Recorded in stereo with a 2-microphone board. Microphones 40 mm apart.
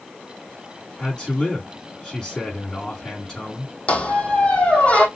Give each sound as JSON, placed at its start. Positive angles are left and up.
{"t": 1.0, "sound": "a man speaking", "side_deg": 20, "distance_m": 3.5}
{"t": 3.9, "sound": "a squeak", "side_deg": 30, "distance_m": 1.3}